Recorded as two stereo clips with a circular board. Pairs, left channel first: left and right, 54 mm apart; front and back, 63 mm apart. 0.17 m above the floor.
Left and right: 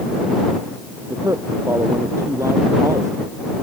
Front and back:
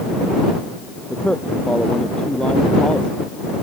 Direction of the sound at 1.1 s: 75° right.